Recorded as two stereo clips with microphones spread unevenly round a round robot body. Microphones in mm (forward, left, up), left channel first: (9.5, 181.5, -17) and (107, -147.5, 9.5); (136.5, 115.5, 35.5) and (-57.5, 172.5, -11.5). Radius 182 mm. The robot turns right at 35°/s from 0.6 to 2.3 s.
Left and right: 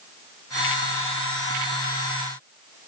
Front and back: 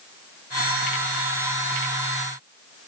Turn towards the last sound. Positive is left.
No sound to turn to.